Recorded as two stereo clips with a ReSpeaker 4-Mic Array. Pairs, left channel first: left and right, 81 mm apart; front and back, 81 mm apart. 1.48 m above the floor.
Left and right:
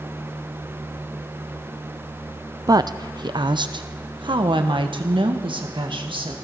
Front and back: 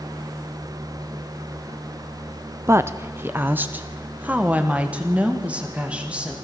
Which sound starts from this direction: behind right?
A woman speaking, at 2.7 s.